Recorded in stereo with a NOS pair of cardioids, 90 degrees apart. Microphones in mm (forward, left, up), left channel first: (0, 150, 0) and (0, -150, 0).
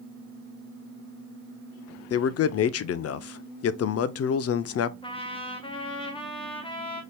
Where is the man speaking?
50° left, 0.6 m.